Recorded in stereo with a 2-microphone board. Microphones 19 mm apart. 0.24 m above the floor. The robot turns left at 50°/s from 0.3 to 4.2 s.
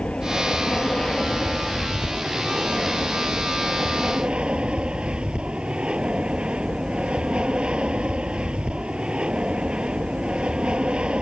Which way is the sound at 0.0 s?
80° left.